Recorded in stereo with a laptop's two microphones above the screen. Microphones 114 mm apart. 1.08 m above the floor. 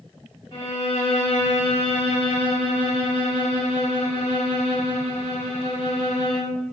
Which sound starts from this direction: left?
A violin, at 0.5 s.